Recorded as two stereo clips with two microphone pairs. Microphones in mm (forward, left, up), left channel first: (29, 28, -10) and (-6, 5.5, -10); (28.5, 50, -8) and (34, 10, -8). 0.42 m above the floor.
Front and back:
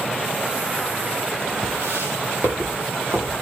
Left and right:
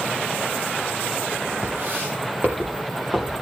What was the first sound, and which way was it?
Footsteps, 130° right.